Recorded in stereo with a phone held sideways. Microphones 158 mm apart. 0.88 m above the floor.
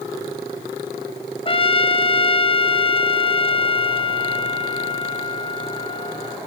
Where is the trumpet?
35° left (ahead or behind), 0.7 m.